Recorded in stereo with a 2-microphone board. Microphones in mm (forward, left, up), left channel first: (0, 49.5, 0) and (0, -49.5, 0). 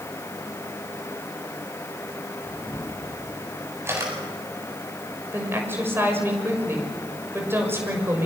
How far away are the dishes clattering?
I don't hear dishes clattering.